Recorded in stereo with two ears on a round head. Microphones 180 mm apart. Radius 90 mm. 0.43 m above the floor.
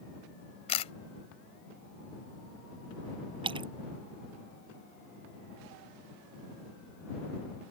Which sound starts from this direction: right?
A splash, at 3.4 s.